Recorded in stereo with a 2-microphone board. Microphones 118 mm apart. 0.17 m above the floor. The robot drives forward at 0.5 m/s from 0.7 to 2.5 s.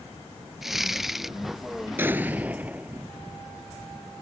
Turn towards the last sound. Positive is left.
turn(degrees=-15)  # may be behind; listen again after turning